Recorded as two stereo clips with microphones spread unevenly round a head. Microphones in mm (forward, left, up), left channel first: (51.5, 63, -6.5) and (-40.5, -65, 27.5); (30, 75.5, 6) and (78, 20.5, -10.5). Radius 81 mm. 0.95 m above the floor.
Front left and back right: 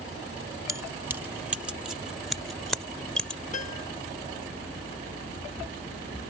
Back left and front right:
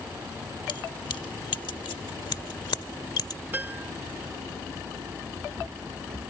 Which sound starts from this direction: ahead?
A piano, at 3.5 s.